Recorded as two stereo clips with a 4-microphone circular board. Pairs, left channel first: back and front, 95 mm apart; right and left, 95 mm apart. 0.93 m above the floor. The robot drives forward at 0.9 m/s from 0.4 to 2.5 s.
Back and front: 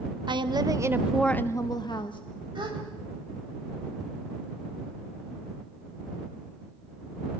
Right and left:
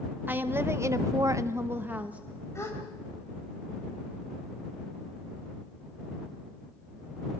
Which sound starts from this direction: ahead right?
A gasp, at 2.5 s.